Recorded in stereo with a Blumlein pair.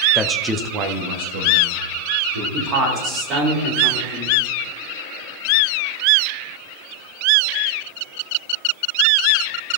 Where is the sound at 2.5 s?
30° right, 3.5 m.